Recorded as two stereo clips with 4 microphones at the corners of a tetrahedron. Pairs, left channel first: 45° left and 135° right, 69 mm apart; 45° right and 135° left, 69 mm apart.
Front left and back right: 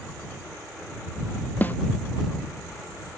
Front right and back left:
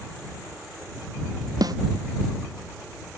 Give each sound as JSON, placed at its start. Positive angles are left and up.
{"t": 1.6, "sound": "a snare drum", "azimuth_deg": 110}